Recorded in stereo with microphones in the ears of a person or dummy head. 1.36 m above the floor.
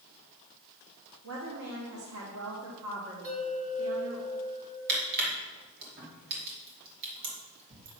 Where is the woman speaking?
70° right (ahead or behind), 1.3 m.